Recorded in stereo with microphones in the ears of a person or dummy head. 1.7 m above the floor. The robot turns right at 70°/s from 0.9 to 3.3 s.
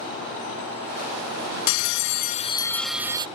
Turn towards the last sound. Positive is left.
turn(degrees=-150)